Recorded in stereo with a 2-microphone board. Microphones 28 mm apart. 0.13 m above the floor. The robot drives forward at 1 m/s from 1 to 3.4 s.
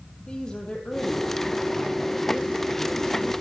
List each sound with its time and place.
0.3 s a woman speaking: 30° left (ahead or behind), 3.5 m; by 3.3 s 20° left (ahead or behind), 5.5 m